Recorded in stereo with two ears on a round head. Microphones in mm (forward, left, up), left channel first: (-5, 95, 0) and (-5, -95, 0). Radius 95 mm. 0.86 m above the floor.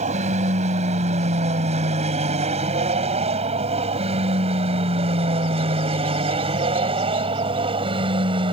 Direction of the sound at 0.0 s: 35° right (ahead or behind).